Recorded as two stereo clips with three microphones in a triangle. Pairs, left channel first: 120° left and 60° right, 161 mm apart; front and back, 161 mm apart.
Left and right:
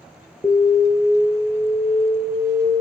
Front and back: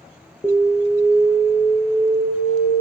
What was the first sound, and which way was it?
An alarm, 50° left.